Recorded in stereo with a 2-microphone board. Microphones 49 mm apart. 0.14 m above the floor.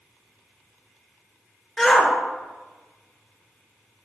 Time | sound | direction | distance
1.8 | a shout | 15° left (ahead or behind) | 2.5 m